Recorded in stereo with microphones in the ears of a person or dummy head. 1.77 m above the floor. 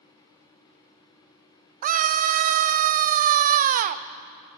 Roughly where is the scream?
Right.